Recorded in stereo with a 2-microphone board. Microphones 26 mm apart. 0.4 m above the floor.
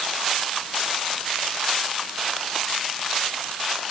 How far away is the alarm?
No alarm in this recording.